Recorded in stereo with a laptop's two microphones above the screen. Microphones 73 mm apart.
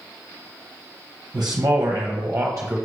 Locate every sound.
1.3 s a man speaking: 60° right (ahead or behind), 0.8 m; by 2.8 s 30° right (ahead or behind), 0.9 m